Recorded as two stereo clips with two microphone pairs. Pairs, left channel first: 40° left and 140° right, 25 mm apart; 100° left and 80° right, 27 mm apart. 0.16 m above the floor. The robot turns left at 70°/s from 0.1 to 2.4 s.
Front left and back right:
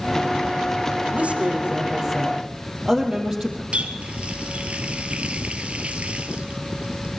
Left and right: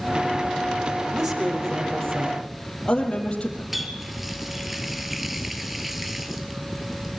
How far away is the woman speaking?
About 5 m.